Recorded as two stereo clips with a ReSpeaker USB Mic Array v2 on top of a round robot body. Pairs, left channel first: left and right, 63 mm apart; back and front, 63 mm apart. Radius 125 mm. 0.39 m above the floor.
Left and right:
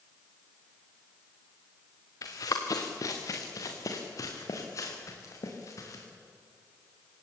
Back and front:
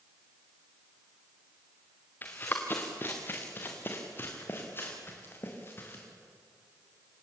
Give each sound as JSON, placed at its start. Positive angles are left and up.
{"t": 2.2, "sound": "running footsteps", "azimuth_deg": 120, "distance_m": 3.0}